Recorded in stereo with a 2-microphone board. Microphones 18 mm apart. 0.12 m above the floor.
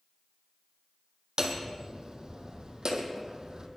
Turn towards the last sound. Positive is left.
turn(degrees=-50)  # may be behind; listen again after turning